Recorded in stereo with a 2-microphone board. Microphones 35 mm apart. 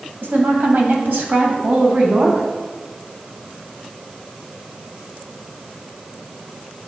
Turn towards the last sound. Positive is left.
turn(degrees=-50)  # may be behind; listen again after turning